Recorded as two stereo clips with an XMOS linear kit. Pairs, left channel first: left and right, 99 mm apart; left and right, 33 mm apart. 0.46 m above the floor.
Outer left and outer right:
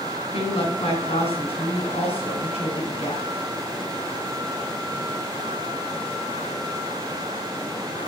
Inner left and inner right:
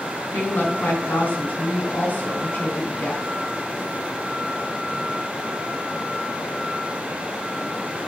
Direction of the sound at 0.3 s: 75° left (ahead or behind).